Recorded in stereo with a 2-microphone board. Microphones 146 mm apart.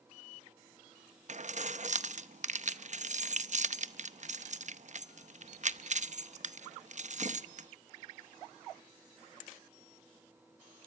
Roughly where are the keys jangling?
Right.